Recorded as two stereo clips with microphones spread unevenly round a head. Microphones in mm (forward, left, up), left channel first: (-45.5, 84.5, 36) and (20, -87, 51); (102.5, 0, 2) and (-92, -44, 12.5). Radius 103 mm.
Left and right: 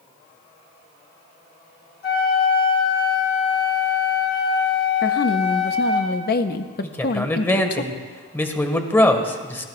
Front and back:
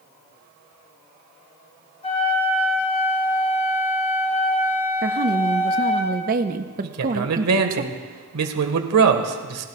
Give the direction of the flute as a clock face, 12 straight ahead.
10 o'clock.